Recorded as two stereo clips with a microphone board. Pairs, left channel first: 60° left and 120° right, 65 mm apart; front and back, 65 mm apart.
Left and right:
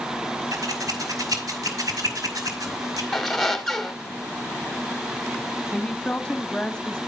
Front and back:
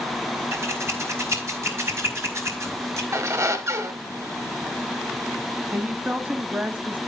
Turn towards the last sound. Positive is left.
turn(degrees=130)